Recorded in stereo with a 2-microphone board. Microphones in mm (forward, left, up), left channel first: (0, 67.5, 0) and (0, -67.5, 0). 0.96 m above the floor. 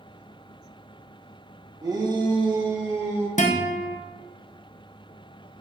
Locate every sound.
1.8 s a shout: 30° right (ahead or behind), 0.9 m
3.4 s a guitar: 75° left (ahead or behind), 0.6 m